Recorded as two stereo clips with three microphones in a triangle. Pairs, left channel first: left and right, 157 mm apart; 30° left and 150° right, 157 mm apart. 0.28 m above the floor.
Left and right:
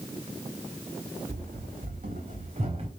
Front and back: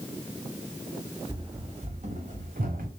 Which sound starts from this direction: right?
Running footsteps, at 1.3 s.